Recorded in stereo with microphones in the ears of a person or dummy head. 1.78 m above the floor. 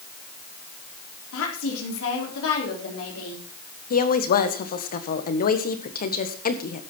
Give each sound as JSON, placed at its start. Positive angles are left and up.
{"t": 1.3, "sound": "a woman speaking", "side_deg": 80, "distance_m": 4.0}
{"t": 3.9, "sound": "a woman speaking", "side_deg": 45, "distance_m": 1.7}